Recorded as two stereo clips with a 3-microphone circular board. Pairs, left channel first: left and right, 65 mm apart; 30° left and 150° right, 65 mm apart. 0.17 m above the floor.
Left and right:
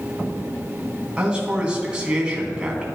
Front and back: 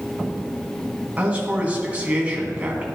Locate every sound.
1.2 s a man speaking: 135° right, 1.6 m